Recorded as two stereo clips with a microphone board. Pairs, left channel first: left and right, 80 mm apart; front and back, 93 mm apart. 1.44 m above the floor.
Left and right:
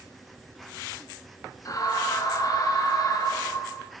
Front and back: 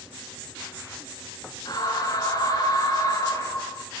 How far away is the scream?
About 8.5 m.